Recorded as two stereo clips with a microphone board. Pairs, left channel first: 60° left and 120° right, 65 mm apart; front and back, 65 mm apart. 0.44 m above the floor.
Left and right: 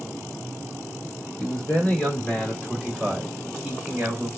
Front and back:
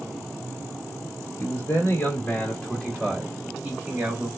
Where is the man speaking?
5° left, 1.5 m; by 4.3 s 165° left, 1.3 m.